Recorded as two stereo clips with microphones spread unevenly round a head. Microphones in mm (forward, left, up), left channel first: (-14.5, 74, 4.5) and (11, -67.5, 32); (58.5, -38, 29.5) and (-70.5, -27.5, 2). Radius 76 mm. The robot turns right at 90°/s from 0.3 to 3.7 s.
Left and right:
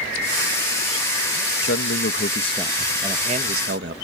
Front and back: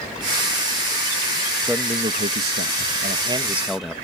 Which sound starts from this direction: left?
A man speaking, at 1.6 s.